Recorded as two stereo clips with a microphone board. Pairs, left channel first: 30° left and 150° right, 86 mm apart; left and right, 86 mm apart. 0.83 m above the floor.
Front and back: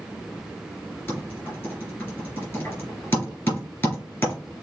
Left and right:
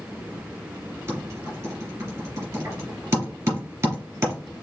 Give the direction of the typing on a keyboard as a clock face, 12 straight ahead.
1 o'clock.